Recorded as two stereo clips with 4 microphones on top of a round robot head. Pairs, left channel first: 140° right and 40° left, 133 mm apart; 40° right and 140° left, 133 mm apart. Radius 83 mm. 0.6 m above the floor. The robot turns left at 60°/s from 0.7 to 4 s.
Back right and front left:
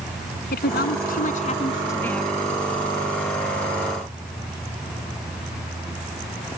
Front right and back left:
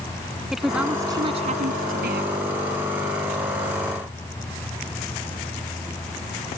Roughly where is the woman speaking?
Behind right.